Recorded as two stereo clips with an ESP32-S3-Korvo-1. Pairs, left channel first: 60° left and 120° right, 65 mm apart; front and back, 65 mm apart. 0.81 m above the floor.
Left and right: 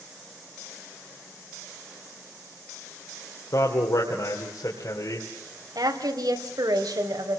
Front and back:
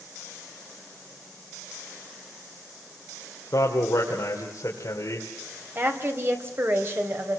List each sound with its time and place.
3.5 s a man speaking: 35° left, 3 m
5.8 s a woman speaking: 125° right, 3.5 m